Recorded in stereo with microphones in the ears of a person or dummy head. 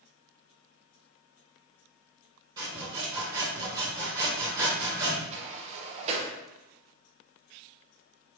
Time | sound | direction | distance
2.6 | sawing | 25° right (ahead or behind) | 2.0 m
5.3 | a sliding door | 40° right (ahead or behind) | 0.9 m